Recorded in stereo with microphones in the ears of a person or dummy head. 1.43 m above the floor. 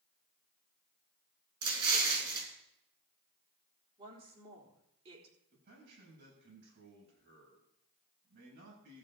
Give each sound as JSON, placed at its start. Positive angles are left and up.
{"t": 1.6, "sound": "an explosion", "side_deg": -30, "distance_m": 3.5}
{"t": 4.0, "sound": "a woman speaking", "side_deg": -35, "distance_m": 4.0}
{"t": 5.5, "sound": "a man speaking", "side_deg": -60, "distance_m": 8.0}